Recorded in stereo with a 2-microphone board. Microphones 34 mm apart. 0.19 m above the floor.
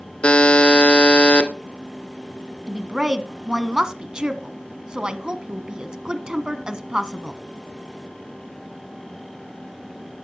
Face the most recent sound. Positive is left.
turn(degrees=-20)  # may be behind; listen again after turning